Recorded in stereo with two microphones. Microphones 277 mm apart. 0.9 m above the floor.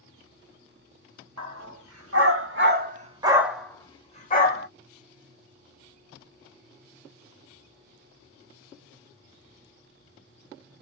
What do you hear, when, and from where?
1.4 s a dog barking: 65° right (ahead or behind), 1.2 m; by 4.7 s 35° left (ahead or behind), 1.0 m